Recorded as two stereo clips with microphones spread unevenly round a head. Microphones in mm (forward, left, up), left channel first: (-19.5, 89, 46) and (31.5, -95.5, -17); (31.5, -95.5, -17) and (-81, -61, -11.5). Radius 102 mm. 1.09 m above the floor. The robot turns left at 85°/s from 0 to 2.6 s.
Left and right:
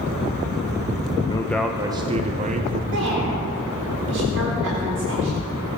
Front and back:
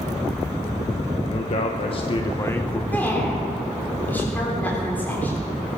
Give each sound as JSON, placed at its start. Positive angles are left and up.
{"t": 1.3, "sound": "a man speaking", "azimuth_deg": 25, "distance_m": 0.8}
{"t": 2.9, "sound": "a woman speaking", "azimuth_deg": -90, "distance_m": 3.5}